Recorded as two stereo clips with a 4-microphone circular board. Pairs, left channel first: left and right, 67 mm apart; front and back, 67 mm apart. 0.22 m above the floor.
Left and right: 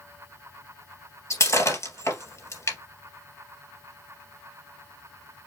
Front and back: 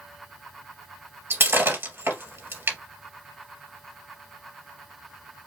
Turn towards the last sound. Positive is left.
turn(degrees=125)